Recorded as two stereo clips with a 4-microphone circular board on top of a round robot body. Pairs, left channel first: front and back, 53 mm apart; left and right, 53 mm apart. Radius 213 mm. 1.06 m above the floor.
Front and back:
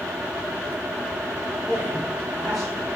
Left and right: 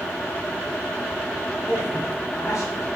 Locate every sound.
1.7 s a man speaking: 115° left, 6 m